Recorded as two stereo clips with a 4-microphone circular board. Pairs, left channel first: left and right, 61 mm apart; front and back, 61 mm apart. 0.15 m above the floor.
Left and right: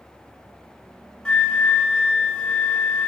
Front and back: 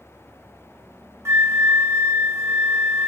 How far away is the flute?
About 0.8 m.